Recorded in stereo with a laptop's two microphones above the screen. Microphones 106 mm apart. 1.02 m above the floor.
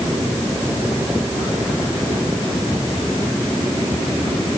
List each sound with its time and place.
Only background noise.